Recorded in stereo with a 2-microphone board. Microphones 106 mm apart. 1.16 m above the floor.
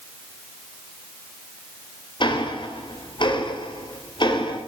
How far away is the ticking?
About 3 m.